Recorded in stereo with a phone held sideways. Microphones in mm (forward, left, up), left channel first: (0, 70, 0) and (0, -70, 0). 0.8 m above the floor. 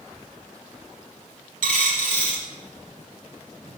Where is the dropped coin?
65° right (ahead or behind), 1.5 m.